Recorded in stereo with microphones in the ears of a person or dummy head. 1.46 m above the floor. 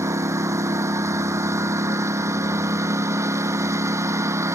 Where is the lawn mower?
15° right (ahead or behind).